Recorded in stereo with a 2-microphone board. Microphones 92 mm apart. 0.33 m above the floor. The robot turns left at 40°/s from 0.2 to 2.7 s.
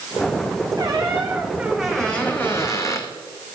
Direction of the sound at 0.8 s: 135° right.